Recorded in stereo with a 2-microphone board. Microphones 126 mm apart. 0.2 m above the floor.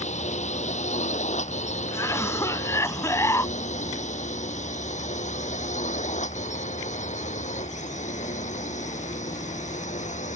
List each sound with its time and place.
0.0 s a drone: 65° left (ahead or behind); by 10.4 s 70° left (ahead or behind)
1.9 s a cough: 25° left (ahead or behind)